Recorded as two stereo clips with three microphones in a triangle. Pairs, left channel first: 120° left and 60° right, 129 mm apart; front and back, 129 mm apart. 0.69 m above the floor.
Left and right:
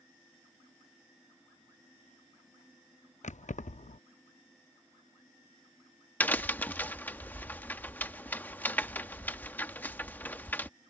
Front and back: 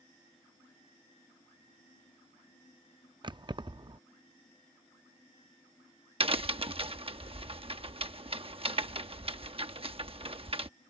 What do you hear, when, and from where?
3.2 s keys jangling: 130° left
6.2 s a crack: 170° right